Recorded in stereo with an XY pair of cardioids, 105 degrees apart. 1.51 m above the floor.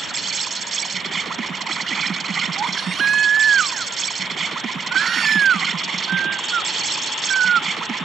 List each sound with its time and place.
0.0 s an insect: 40° right
2.5 s a baby crying: 50° right